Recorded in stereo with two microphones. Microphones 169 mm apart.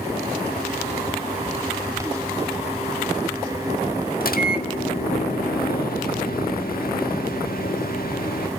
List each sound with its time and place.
4.2 s a microwave: 60° left (ahead or behind), 1.8 m